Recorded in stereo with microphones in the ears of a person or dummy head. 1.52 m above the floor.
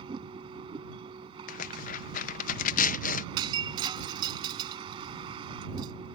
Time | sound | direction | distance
0.0 | a vehicle | 30° right (ahead or behind) | ?
1.5 | tearing paper | 50° left (ahead or behind) | ?
3.4 | breaking glass | 25° right (ahead or behind) | ?